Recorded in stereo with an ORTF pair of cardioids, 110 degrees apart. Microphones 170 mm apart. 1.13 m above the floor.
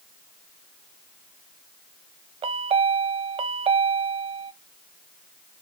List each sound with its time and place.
2.4 s a chime: 35° right, 0.5 m